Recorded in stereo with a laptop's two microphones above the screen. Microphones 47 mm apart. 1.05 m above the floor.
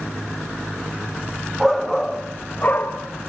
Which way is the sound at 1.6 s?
5° right (ahead or behind).